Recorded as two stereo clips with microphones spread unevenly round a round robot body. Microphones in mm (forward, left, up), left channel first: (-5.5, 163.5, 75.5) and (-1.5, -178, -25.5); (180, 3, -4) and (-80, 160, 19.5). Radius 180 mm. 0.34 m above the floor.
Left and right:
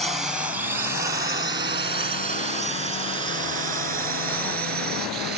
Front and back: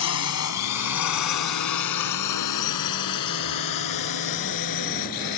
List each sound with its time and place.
0.0 s a drone: 10° right; by 5.4 s 35° right